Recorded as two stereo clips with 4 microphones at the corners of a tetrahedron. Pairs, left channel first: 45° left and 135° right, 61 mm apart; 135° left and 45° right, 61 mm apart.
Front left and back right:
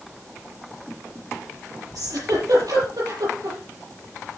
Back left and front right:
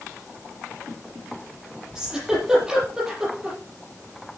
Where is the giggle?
120° right, 7.5 m.